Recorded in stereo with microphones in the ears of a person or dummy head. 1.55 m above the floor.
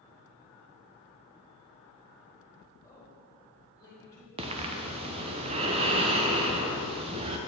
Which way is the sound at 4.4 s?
25° right (ahead or behind).